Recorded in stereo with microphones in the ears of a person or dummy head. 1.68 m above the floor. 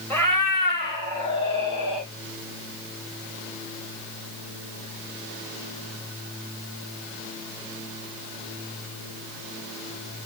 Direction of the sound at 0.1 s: 15° left (ahead or behind).